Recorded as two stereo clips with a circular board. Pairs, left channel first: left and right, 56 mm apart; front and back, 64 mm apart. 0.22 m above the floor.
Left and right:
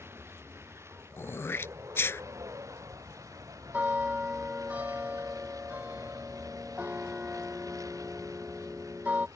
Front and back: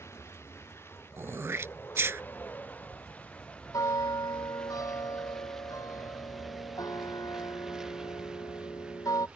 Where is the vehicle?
45° right; by 9.4 s 105° right.